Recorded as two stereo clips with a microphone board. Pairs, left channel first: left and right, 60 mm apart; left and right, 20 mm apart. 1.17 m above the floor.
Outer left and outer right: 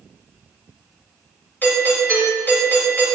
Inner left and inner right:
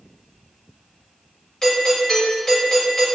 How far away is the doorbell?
About 6.5 m.